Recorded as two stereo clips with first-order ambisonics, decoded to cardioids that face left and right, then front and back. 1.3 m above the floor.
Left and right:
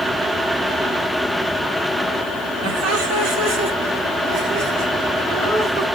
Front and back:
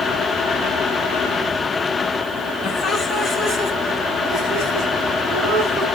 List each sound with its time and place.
2.6 s laughter: 65° right, 2.0 m; by 5.8 s 135° right, 5 m